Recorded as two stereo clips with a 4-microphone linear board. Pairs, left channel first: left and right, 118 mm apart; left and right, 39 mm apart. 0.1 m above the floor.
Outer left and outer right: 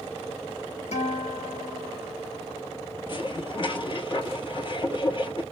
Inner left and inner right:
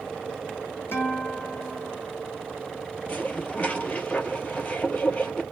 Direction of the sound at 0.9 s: 75° left (ahead or behind).